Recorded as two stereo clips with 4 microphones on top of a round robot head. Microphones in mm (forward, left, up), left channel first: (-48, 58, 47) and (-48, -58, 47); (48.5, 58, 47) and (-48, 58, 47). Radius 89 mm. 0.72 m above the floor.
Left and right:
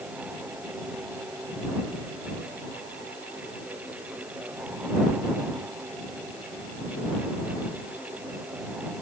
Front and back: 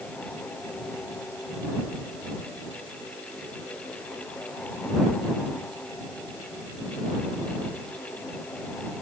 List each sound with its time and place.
Only background noise.